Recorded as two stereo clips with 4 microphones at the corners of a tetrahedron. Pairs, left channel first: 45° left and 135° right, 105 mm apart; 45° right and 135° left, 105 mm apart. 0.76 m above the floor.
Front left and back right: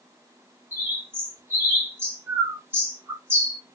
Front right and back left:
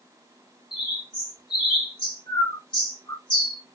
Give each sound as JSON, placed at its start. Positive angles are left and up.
{"t": 0.7, "sound": "a bird", "azimuth_deg": -70, "distance_m": 1.2}